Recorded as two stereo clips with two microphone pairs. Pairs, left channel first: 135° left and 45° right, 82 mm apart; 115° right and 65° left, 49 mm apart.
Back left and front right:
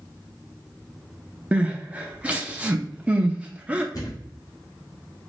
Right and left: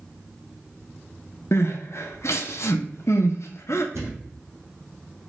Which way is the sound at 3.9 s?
90° left.